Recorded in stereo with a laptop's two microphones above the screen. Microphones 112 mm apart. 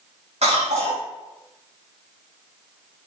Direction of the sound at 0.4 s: 75° right (ahead or behind).